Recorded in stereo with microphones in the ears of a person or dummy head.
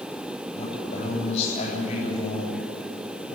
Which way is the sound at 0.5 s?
40° left (ahead or behind).